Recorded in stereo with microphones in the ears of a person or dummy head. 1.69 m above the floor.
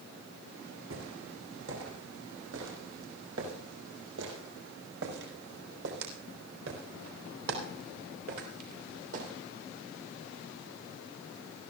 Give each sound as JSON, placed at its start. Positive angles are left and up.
{"t": 0.9, "sound": "footsteps", "side_deg": -75, "distance_m": 7.0}